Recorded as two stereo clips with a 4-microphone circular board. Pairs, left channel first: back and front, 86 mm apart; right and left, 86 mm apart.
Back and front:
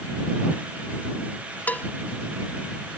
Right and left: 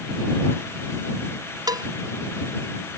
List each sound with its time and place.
1.7 s a cowbell: 115° left